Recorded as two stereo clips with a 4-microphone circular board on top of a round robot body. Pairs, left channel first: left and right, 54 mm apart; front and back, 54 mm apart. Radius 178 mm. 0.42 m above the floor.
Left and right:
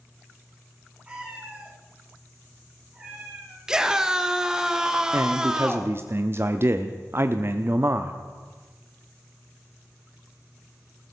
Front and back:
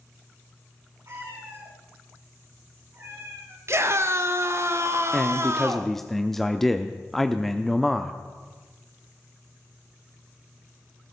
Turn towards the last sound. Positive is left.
turn(degrees=-85)